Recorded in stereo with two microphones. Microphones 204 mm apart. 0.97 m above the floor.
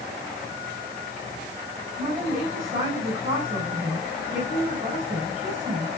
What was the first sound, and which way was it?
A woman speaking, 40° right (ahead or behind).